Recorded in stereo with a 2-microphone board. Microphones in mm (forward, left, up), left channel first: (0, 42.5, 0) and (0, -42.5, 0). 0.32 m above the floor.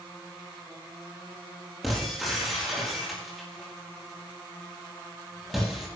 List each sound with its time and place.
1.8 s breaking glass: centre (ahead or behind), 5 m